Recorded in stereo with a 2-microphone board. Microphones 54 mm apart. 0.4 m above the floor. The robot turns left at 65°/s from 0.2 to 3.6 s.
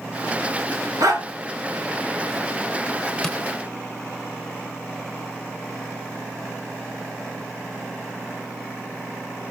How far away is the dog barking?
About 2.5 m.